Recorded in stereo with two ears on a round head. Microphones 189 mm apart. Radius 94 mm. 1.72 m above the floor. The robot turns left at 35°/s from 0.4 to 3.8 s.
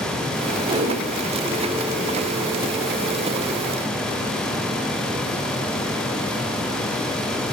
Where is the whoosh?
25° right (ahead or behind), 5.5 m; by 1.0 s 40° right (ahead or behind), 5.5 m.